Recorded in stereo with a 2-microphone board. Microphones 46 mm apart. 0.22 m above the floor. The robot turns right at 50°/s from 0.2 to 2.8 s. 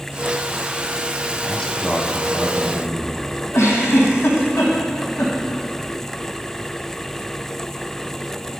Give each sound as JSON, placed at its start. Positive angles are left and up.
{"t": 1.4, "sound": "a man speaking", "azimuth_deg": 140, "distance_m": 1.1}
{"t": 3.5, "sound": "a giggle", "side_deg": 80, "distance_m": 2.5}